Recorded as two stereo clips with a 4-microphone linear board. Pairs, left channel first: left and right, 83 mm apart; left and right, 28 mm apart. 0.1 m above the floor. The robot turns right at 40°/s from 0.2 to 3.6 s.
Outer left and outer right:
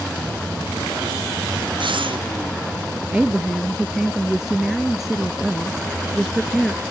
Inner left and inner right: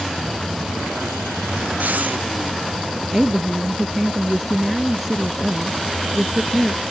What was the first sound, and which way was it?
Breathing, 75° right (ahead or behind).